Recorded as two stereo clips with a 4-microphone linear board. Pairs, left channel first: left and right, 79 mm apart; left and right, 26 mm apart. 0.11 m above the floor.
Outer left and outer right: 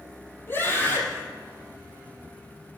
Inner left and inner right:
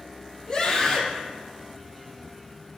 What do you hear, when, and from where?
0.5 s a scream: 25° left (ahead or behind), 3.5 m